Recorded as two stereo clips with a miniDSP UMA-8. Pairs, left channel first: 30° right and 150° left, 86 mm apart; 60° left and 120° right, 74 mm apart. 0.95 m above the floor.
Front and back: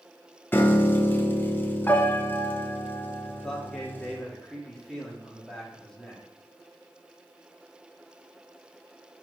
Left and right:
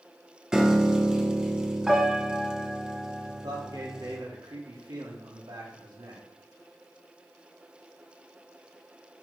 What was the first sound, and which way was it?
A piano, 55° right.